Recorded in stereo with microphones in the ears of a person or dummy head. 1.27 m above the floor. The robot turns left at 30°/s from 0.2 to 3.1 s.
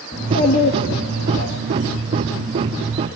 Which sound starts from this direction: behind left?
A child speaking, at 0.1 s.